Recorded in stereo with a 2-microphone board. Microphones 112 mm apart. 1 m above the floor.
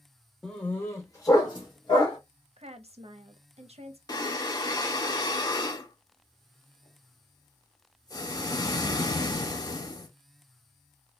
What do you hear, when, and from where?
0.4 s a dog barking: 5° left (ahead or behind), 0.7 m; by 2.2 s 45° left (ahead or behind), 1.4 m
2.6 s a woman speaking: 65° right (ahead or behind), 0.6 m
4.1 s breathing: 35° left (ahead or behind), 0.5 m